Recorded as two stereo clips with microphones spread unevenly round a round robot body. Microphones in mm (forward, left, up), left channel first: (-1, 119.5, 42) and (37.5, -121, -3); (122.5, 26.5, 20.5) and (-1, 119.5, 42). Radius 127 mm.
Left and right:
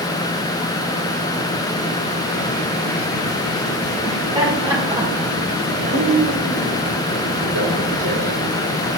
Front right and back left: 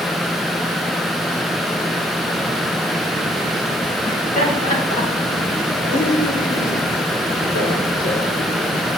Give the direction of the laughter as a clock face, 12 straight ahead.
12 o'clock.